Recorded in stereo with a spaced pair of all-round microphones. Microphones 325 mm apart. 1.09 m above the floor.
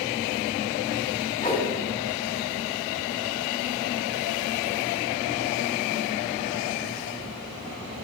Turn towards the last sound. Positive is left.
turn(degrees=25)  # may be behind; listen again after turning